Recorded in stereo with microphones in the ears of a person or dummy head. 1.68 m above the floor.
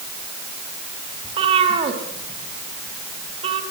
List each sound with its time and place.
1.2 s a cat meowing: 35° right (ahead or behind), 3.5 m